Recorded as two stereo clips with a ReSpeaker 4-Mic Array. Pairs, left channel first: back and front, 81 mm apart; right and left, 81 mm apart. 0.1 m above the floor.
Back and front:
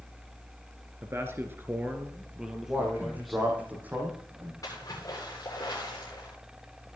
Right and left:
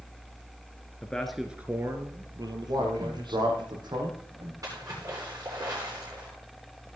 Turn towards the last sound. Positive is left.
turn(degrees=135)